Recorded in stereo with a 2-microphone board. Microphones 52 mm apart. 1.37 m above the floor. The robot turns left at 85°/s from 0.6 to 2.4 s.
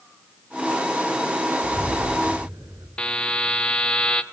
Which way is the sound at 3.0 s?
20° left (ahead or behind).